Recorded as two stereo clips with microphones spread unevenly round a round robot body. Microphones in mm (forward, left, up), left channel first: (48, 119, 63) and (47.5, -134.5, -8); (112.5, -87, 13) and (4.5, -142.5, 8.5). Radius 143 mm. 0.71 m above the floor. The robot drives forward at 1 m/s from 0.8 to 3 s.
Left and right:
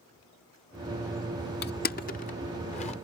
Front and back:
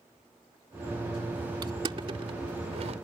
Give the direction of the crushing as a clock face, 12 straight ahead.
7 o'clock.